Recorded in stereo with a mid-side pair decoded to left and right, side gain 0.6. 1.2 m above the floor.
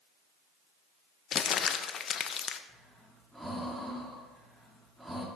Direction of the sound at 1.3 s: 45° left.